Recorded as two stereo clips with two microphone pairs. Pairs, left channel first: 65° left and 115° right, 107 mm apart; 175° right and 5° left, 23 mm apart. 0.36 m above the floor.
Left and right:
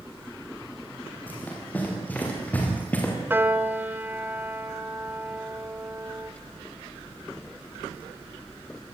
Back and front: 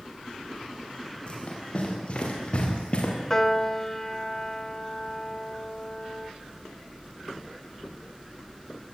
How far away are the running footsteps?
About 8.5 m.